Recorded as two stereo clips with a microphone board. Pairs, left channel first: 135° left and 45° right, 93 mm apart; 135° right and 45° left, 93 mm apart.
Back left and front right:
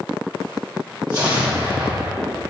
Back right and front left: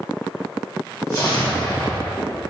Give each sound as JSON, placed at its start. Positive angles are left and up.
{"t": 1.1, "sound": "an explosion", "azimuth_deg": -85, "distance_m": 1.2}